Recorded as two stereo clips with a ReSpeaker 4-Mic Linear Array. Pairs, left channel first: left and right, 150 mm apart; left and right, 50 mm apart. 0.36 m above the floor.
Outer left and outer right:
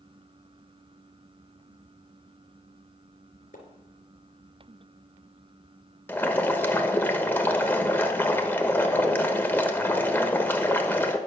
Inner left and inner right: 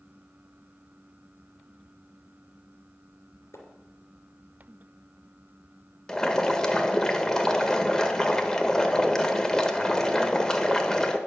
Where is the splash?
75° left (ahead or behind), 3 m.